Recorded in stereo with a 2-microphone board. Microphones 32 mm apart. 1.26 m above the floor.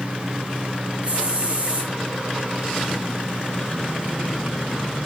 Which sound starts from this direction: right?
A hiss, at 1.0 s.